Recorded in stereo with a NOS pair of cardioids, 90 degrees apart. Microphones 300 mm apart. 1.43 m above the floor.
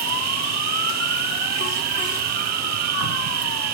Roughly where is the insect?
Ahead right.